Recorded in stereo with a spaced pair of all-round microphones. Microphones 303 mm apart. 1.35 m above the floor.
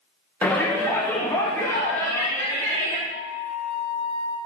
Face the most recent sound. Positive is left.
turn(degrees=-45)  # may be behind; listen again after turning